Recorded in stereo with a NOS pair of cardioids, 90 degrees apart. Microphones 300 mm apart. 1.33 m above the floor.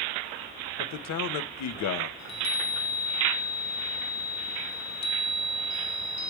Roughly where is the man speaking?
Ahead left.